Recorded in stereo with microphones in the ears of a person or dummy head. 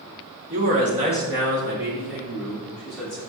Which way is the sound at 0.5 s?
45° right (ahead or behind).